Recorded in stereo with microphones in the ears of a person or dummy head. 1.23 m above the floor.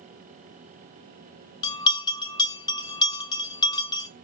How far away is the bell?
About 0.5 m.